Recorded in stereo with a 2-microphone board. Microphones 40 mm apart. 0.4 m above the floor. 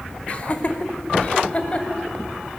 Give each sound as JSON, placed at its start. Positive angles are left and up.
{"t": 0.3, "sound": "laughter", "side_deg": 35, "distance_m": 1.7}